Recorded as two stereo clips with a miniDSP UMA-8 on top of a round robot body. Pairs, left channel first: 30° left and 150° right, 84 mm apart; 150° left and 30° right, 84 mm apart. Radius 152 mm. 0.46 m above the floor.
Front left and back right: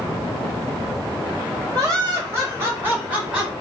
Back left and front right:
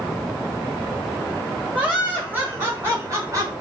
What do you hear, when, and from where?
1.7 s laughter: 105° right, 2 m; by 3.5 s 75° right, 1.9 m